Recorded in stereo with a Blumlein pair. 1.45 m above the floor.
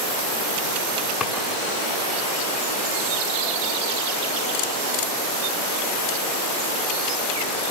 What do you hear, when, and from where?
1.2 s a drawer: 25° left, 6.5 m